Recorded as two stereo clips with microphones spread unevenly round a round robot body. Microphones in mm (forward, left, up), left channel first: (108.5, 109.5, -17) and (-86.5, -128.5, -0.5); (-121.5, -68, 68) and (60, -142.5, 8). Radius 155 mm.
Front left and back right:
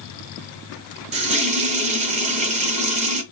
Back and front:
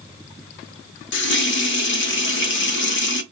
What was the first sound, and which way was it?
A running tap, 165° left.